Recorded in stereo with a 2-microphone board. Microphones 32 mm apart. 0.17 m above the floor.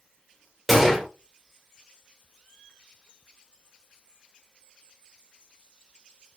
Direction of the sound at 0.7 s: Centre (ahead or behind).